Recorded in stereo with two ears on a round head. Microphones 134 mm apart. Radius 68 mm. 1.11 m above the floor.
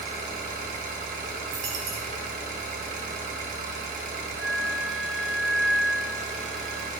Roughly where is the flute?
Centre.